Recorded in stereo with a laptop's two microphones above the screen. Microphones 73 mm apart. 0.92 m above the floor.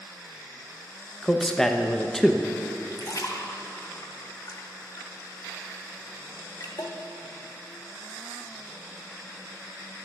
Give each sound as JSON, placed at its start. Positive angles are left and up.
{"t": 1.2, "sound": "a man speaking", "side_deg": 5, "distance_m": 0.5}
{"t": 2.9, "sound": "a splash", "side_deg": 50, "distance_m": 0.9}